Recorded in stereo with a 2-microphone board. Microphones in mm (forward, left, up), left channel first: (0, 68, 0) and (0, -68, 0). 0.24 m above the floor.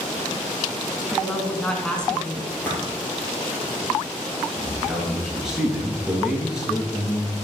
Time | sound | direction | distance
1.1 | a woman speaking | 5° left (ahead or behind) | 2 m
2.5 | a splash | 15° left (ahead or behind) | 4.5 m
4.6 | a man speaking | 5° right (ahead or behind) | 4 m